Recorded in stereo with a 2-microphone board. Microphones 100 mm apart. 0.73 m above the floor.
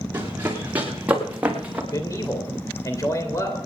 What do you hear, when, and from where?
0.1 s running footsteps: 20° right (ahead or behind), 4.5 m; by 1.8 s 15° right (ahead or behind), 3.5 m
1.9 s a man speaking: 35° left (ahead or behind), 3 m